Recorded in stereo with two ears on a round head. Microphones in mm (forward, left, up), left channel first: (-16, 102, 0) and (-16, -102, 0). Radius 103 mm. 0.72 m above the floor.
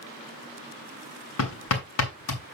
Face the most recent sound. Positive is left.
turn(degrees=70)  # may be behind; listen again after turning